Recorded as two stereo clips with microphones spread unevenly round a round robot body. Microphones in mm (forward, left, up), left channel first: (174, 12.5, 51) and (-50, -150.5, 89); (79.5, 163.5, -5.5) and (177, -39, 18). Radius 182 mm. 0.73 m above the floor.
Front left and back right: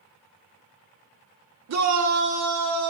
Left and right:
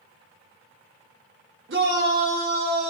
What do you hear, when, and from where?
1.7 s a shout: 120° right, 2.5 m; by 2.9 s 145° right, 3.5 m